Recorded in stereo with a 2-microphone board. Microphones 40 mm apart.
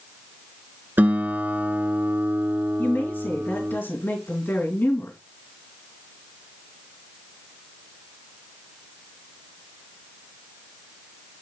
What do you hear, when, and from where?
1.0 s a guitar: 50° right (ahead or behind), 1.1 m
2.8 s a woman speaking: 65° left (ahead or behind), 3 m